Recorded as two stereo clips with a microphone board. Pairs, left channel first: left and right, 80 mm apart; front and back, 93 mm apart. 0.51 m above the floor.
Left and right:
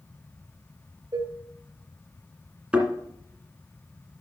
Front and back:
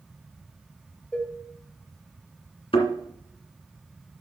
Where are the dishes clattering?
75° right, 1.3 m.